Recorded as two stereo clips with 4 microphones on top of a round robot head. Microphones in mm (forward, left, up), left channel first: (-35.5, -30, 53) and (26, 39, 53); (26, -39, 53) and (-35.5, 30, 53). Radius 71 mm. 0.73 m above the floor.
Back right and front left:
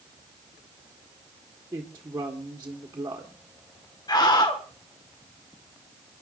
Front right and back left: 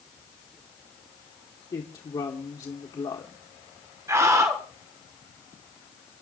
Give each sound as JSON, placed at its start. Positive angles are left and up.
{"t": 1.7, "sound": "a woman speaking", "azimuth_deg": -15, "distance_m": 1.8}
{"t": 4.1, "sound": "a scream", "azimuth_deg": -170, "distance_m": 1.8}